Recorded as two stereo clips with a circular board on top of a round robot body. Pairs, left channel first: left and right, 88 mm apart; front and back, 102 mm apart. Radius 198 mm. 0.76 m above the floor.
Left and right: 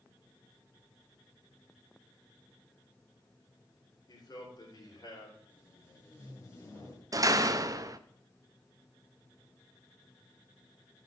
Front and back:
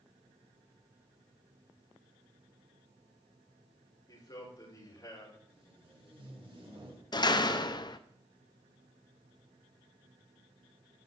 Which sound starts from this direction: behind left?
Tape being pulled, at 5.5 s.